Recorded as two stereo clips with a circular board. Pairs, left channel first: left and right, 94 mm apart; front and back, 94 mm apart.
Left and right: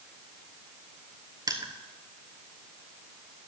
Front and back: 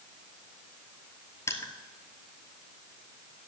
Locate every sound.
1.5 s crushing: 50° right, 1.0 m